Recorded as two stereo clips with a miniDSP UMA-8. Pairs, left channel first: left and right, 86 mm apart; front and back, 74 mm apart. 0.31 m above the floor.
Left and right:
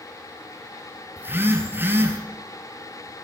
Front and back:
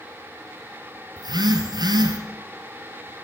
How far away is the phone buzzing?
About 1.8 m.